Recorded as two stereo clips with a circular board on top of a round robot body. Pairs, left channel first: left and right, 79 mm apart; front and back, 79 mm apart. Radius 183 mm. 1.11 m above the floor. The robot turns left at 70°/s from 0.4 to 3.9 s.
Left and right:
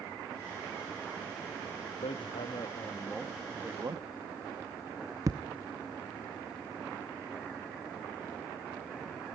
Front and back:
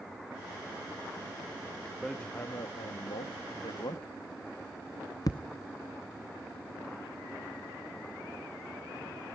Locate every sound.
2.0 s hammering: 90° left, 0.6 m; by 5.4 s 40° right, 0.6 m